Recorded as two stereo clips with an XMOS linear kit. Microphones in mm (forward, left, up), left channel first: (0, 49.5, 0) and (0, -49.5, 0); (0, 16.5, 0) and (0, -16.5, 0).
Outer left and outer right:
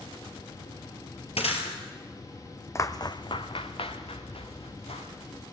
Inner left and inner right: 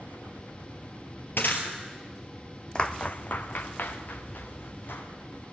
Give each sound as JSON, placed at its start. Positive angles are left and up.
{"t": 1.4, "sound": "breaking glass", "side_deg": 85, "distance_m": 3.0}
{"t": 2.8, "sound": "footsteps", "side_deg": 30, "distance_m": 0.9}